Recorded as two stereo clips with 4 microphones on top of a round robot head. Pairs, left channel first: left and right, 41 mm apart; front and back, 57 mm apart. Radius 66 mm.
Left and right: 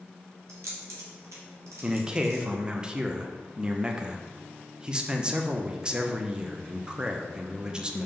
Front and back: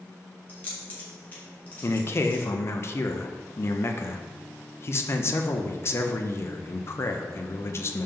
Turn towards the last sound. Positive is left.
turn(degrees=-25)